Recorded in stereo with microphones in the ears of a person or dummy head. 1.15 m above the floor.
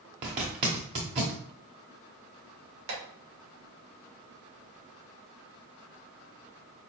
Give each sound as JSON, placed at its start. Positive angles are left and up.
{"t": 0.2, "sound": "a zipper", "side_deg": -25, "distance_m": 0.9}
{"t": 2.9, "sound": "tapping", "side_deg": -75, "distance_m": 2.5}